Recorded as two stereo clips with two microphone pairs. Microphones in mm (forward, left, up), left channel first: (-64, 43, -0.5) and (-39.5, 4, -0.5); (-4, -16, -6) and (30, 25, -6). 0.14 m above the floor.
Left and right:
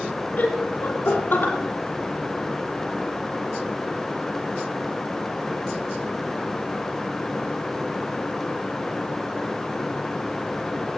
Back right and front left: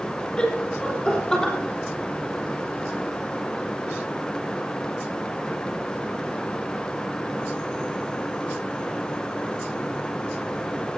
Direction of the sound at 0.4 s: 160° left.